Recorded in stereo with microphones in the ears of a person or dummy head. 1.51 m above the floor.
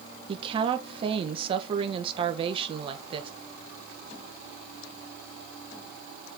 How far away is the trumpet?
No trumpet in this recording.